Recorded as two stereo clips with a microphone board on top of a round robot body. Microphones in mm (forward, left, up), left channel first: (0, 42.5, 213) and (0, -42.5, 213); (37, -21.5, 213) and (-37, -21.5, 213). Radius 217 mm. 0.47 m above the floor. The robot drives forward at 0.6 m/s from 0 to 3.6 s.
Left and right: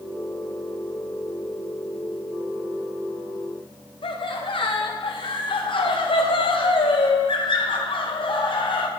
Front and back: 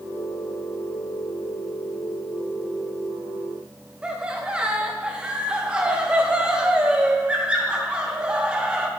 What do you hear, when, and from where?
4.0 s laughter: 105° left, 3 m